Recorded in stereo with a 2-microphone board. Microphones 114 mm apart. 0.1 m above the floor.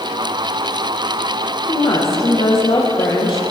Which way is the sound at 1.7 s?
45° left (ahead or behind).